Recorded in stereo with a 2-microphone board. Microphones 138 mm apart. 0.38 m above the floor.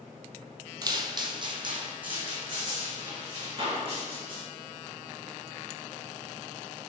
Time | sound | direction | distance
0.8 | footsteps | 30° right (ahead or behind) | 0.5 m